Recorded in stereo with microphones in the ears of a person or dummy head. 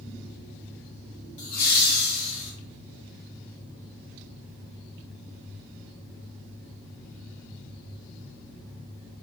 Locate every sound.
1.4 s laughter: 45° left (ahead or behind), 1.1 m; by 2.5 s 70° left (ahead or behind), 1.3 m